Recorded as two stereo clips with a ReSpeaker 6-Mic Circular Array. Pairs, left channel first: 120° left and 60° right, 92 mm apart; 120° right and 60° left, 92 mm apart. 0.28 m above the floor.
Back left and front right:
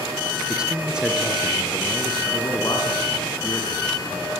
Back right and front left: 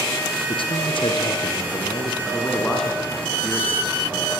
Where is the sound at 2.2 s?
160° left, 4 m.